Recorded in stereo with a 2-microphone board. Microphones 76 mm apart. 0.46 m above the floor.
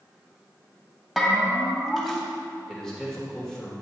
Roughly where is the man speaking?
Centre.